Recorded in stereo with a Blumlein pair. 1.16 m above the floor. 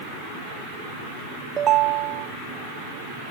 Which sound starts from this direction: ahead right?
A ringtone, at 1.6 s.